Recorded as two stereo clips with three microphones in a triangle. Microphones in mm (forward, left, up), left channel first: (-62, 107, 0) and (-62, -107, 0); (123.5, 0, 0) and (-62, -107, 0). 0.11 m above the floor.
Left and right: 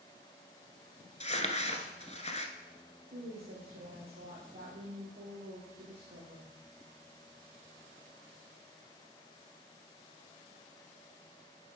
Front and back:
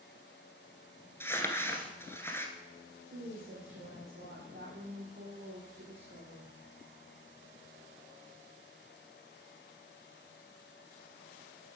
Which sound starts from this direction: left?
Crumpling, at 1.2 s.